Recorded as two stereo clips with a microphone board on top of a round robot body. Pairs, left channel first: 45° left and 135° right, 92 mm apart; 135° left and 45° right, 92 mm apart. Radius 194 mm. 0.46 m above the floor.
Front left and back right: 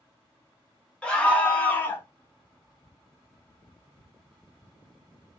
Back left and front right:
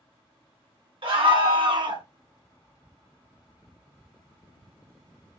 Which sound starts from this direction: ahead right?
A scream, at 1.0 s.